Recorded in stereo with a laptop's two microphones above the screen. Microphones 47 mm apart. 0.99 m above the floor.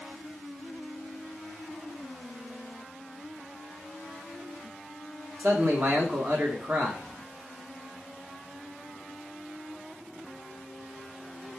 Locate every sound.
5.4 s a man speaking: 55° right (ahead or behind), 1.1 m